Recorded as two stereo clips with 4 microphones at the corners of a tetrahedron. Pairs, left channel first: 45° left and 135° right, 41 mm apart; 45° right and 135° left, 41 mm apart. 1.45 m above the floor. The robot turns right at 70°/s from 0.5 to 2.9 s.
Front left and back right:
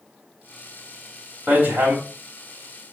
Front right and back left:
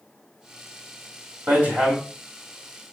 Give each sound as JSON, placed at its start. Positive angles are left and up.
{"t": 1.5, "sound": "hammering", "azimuth_deg": 165, "distance_m": 3.5}